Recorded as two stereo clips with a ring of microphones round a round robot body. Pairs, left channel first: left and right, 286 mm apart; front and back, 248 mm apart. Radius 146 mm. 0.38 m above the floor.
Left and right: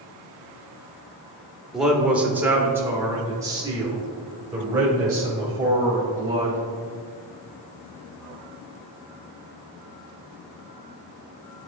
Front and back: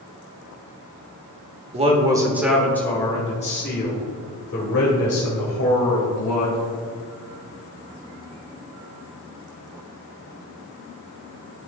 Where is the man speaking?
175° right, 1.1 m; by 6.6 s 15° right, 2.5 m.